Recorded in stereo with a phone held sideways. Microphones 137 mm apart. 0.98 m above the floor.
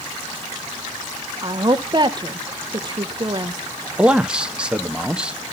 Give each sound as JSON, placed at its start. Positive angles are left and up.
{"t": 1.4, "sound": "a woman speaking", "side_deg": -35, "distance_m": 0.7}
{"t": 4.0, "sound": "a man speaking", "side_deg": -5, "distance_m": 0.8}